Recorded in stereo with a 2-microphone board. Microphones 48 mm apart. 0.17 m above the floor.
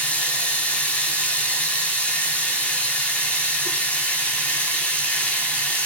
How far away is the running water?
About 0.7 m.